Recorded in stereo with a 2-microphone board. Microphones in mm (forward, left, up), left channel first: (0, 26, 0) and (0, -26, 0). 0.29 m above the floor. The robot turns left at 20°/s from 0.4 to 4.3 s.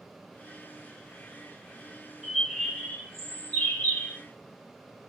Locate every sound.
2.2 s a bird: 170° right, 2 m; by 4.2 s 150° left, 2 m